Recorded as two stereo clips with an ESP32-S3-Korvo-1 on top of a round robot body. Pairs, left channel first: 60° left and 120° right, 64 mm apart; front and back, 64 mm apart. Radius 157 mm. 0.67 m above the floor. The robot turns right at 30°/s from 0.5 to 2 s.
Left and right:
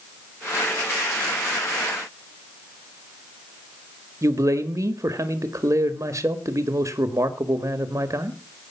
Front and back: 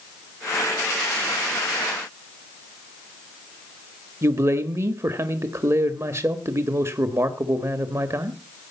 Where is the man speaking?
150° right, 1.8 m.